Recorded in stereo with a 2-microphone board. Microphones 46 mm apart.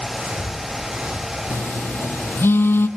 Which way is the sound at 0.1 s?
45° right (ahead or behind).